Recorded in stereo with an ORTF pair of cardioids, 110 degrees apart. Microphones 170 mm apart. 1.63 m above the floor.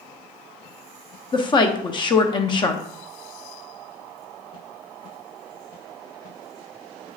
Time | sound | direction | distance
1.3 | a woman speaking | 30° left | 0.7 m